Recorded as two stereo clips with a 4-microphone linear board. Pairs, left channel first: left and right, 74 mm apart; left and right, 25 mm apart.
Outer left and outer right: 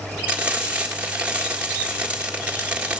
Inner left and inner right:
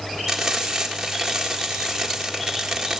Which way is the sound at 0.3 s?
20° right (ahead or behind).